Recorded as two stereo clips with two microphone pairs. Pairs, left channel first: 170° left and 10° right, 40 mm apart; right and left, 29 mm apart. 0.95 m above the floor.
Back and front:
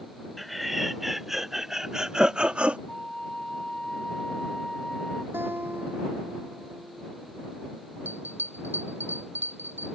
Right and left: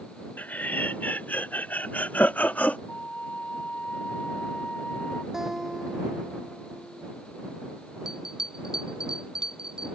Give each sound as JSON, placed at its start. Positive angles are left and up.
{"t": 0.4, "sound": "laughter", "azimuth_deg": -100}
{"t": 2.9, "sound": "a flute", "azimuth_deg": -120}
{"t": 5.3, "sound": "a guitar", "azimuth_deg": 15}
{"t": 8.1, "sound": "a bell", "azimuth_deg": 20}